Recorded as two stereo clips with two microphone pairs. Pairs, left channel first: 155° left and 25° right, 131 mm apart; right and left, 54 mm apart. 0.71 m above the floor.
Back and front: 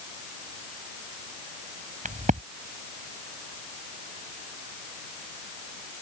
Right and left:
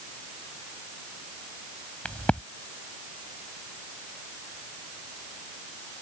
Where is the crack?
20° right.